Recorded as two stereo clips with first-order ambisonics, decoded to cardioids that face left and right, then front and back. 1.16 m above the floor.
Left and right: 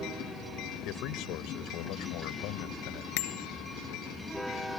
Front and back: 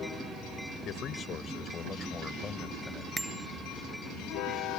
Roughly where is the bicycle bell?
Left.